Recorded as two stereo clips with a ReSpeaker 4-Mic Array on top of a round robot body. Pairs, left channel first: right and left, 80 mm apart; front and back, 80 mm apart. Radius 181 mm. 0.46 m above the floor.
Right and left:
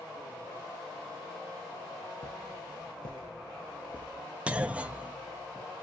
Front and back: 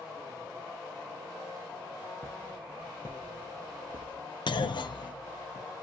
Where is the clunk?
15° left, 0.6 m.